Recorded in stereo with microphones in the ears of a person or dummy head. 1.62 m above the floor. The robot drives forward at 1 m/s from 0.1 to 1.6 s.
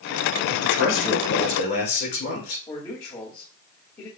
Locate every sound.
0.5 s a man speaking: 70° left (ahead or behind), 3 m; by 2.6 s 55° left (ahead or behind), 3.5 m
2.7 s a man speaking: 20° left (ahead or behind), 2 m